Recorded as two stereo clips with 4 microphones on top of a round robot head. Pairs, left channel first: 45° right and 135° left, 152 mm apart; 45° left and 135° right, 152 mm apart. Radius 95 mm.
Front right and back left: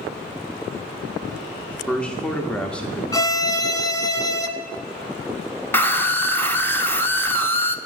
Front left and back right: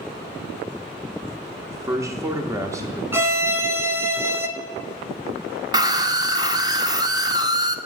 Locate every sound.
1.7 s a man speaking: 115° right, 1.0 m
3.1 s a violin: 80° right, 1.0 m
5.7 s a scream: 105° right, 0.9 m